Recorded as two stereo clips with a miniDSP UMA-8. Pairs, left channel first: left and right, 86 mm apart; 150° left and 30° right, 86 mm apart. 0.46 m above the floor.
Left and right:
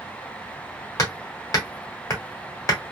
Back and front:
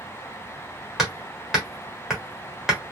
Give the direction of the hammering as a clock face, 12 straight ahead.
10 o'clock.